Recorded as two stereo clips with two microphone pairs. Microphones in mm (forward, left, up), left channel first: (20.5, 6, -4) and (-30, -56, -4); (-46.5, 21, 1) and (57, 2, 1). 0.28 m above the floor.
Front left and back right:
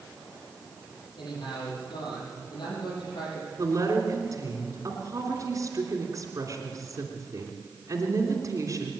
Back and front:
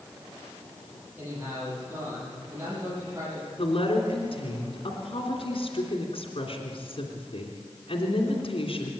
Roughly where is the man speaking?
Ahead left.